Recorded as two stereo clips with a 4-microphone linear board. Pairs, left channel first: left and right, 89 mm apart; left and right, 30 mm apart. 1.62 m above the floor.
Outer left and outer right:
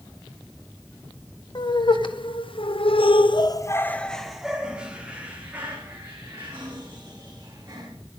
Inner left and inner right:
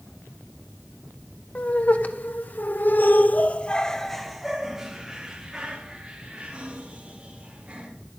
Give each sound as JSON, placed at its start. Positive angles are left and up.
{"t": 1.6, "sound": "laughter", "side_deg": 60, "distance_m": 1.7}